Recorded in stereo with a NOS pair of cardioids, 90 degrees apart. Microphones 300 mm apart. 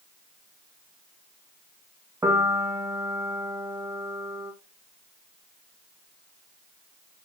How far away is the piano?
About 1.7 m.